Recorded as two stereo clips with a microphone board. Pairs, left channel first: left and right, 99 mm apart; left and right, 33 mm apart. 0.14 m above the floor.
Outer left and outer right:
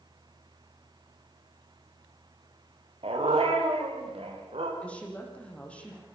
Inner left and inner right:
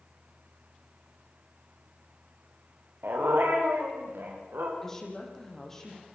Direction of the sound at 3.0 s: 80° right.